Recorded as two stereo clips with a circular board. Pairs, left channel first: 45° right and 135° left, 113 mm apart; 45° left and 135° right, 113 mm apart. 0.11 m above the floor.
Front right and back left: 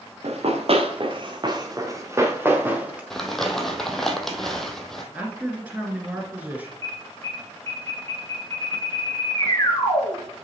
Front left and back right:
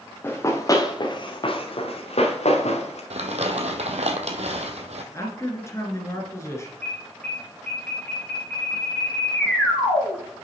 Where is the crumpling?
130° right, 1.0 m.